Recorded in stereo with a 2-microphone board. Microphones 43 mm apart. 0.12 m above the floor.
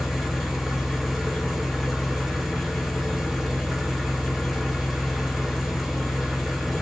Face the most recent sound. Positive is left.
turn(degrees=-5)  # may be behind; listen again after turning